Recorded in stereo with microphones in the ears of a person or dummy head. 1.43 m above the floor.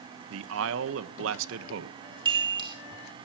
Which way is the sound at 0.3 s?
80° right.